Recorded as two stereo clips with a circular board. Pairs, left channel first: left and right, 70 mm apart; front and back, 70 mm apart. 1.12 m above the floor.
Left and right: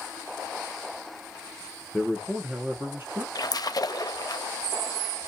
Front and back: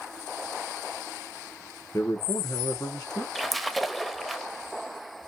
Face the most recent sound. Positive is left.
turn(degrees=90)